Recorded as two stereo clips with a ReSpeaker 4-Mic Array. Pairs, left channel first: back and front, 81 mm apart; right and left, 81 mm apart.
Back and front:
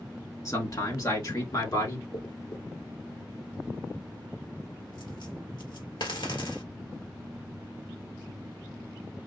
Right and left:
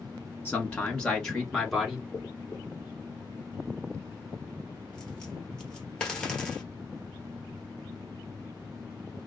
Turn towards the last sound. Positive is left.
turn(degrees=-170)